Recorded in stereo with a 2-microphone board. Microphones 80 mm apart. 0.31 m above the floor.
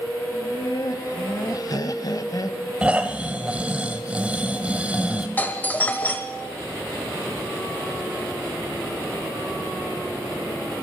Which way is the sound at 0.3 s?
50° left (ahead or behind).